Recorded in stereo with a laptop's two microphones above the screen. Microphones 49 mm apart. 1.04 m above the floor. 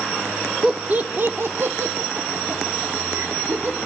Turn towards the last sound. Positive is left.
turn(degrees=-80)